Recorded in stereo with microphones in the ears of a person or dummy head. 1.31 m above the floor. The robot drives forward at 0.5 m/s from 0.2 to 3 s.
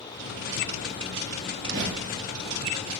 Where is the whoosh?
40° right (ahead or behind), 3.5 m; by 2.3 s 45° right (ahead or behind), 3.5 m.